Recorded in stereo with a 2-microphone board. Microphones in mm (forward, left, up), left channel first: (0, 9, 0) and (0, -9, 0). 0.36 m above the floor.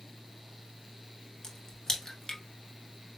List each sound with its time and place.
1.4 s a crack: 30° left (ahead or behind), 1.1 m